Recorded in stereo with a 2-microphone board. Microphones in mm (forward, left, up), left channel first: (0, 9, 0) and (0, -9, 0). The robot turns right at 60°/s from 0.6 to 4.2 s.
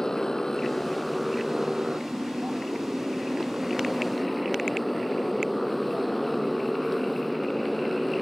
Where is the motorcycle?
145° left; by 8.2 s 5° left.